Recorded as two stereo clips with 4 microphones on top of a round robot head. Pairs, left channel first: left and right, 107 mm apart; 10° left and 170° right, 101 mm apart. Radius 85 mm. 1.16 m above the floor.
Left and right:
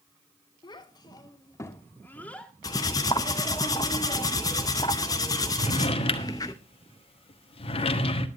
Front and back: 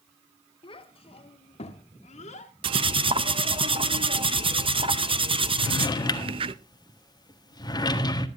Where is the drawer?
60° left, 1.4 m.